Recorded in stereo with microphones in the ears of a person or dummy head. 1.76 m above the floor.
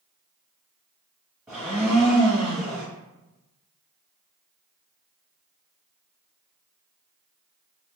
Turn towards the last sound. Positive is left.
turn(degrees=-5)  # may be behind; listen again after turning